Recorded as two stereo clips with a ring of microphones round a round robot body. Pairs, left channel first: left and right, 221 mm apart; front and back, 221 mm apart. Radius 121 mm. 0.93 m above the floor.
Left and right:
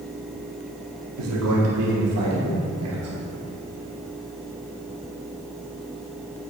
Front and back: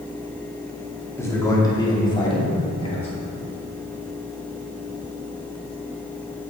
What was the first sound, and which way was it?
A man speaking, 80° right.